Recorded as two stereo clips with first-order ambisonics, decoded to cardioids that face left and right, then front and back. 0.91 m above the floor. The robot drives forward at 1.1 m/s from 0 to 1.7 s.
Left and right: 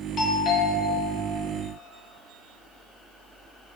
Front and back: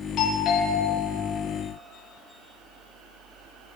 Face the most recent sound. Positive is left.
turn(degrees=85)